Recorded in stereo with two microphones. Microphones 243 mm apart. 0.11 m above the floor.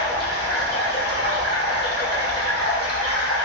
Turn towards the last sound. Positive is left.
turn(degrees=45)  # may be behind; listen again after turning